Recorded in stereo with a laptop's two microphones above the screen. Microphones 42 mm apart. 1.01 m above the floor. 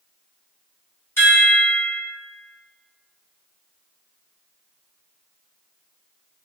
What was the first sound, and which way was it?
A chime, 75° left (ahead or behind).